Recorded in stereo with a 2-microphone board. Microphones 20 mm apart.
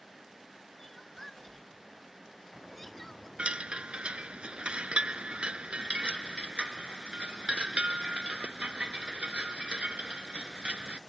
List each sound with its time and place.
0.8 s crying: 15° left (ahead or behind)
3.4 s a chime: 60° right (ahead or behind)